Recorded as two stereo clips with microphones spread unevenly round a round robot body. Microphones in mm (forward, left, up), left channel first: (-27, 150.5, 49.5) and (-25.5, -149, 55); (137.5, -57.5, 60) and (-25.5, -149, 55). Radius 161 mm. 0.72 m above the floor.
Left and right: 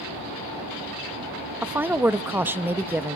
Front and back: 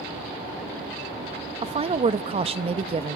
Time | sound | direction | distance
1.6 | a woman speaking | 170° right | 0.7 m